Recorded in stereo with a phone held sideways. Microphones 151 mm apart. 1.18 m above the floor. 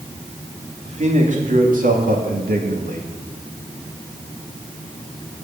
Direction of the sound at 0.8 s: 50° right (ahead or behind).